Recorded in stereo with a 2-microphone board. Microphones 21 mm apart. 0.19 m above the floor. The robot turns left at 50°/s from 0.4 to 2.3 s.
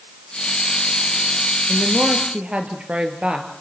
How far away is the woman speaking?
About 3.5 m.